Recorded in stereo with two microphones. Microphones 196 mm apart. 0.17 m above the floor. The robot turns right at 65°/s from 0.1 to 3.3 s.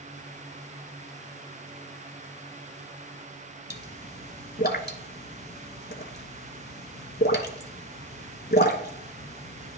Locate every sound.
3.7 s a pop: 55° left (ahead or behind), 0.8 m